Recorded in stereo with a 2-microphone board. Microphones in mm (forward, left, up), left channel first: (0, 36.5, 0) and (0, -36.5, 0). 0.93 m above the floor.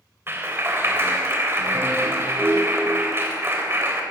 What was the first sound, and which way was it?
A clap, 35° right (ahead or behind).